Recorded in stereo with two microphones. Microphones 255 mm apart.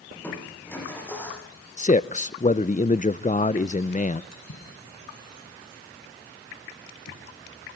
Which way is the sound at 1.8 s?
30° left (ahead or behind).